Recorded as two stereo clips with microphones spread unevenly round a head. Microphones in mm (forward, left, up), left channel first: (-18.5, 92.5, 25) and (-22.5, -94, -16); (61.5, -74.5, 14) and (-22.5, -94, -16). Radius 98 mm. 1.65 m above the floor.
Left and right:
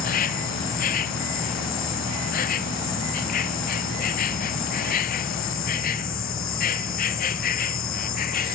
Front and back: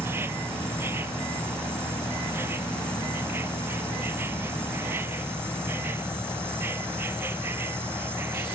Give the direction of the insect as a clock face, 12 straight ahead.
8 o'clock.